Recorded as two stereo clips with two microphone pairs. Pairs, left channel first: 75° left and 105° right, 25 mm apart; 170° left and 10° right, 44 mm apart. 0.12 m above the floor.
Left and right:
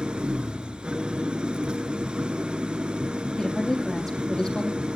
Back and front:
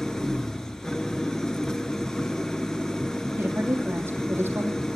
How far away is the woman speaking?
About 4 m.